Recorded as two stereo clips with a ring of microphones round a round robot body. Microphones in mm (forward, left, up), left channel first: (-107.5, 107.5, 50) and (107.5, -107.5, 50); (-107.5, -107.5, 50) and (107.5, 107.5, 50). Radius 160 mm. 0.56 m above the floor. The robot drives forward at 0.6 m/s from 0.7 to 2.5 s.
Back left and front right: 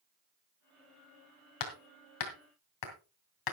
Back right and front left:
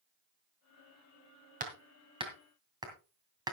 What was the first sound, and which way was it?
Hammering, 110° left.